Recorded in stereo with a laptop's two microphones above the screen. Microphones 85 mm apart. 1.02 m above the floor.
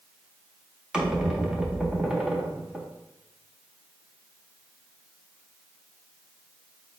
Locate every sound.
0.9 s a squeak: 10° right (ahead or behind), 0.8 m